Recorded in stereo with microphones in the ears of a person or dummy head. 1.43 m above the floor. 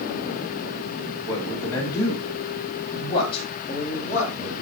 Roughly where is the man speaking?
Centre.